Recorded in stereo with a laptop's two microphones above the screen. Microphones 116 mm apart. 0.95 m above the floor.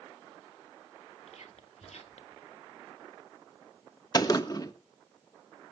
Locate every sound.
1.3 s whispering: 75° left (ahead or behind), 2 m
4.1 s a gunshot: 35° left (ahead or behind), 1.2 m